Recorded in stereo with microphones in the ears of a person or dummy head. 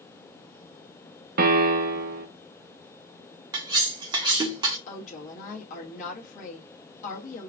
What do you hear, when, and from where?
1.4 s a piano: 45° right (ahead or behind), 0.8 m
3.5 s cutlery clinking: 25° right (ahead or behind), 1.0 m
4.9 s a woman speaking: 40° left (ahead or behind), 1.5 m